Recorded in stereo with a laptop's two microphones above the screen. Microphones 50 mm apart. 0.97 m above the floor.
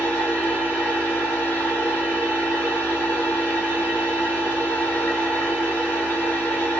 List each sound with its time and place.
0.0 s a machine running: 40° left (ahead or behind), 1.2 m